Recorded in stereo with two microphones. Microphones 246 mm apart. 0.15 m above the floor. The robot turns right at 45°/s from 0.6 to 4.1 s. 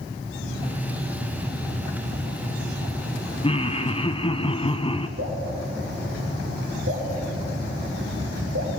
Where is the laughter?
20° left (ahead or behind), 1.1 m.